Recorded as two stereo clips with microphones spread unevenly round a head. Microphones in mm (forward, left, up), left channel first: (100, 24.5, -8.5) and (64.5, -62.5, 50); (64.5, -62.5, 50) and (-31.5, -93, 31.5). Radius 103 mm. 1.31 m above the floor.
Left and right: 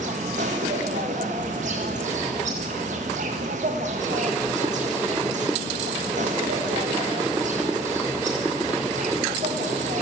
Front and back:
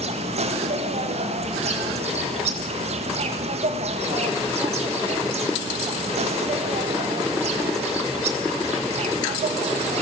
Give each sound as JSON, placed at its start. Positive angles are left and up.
{"t": 0.0, "sound": "an insect", "azimuth_deg": -160, "distance_m": 1.6}